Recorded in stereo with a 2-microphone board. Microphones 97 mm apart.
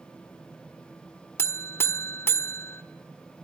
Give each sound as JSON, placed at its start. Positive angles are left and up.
{"t": 1.4, "sound": "a buzzer", "side_deg": 25, "distance_m": 1.4}